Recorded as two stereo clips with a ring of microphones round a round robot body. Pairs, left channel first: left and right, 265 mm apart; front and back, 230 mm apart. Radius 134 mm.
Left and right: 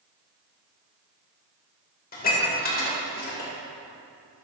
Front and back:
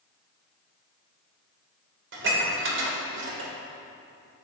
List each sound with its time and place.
2.1 s dishes clattering: 145° left, 2.5 m